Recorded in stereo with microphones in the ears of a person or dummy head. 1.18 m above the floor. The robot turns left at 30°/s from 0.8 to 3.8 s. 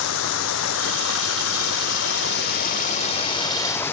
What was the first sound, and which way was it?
Running water, 105° left.